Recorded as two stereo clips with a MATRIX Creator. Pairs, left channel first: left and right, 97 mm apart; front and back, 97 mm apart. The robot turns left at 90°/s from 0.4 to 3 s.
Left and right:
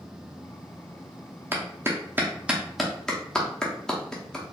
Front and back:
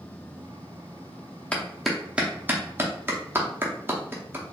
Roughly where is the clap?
Ahead right.